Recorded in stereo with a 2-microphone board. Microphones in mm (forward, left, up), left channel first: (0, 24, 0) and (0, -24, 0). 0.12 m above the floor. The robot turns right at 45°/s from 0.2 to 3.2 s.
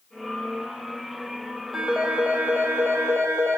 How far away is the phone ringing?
About 3 m.